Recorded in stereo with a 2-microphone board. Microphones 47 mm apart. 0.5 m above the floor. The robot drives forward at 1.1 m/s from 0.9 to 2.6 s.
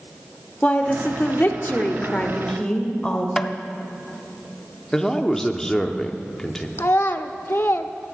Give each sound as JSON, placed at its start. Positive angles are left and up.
{"t": 0.6, "sound": "a woman speaking", "side_deg": 30, "distance_m": 1.0}
{"t": 3.4, "sound": "tapping", "side_deg": 10, "distance_m": 0.5}
{"t": 4.9, "sound": "a man speaking", "side_deg": 10, "distance_m": 0.7}
{"t": 6.8, "sound": "a child speaking", "side_deg": 50, "distance_m": 0.6}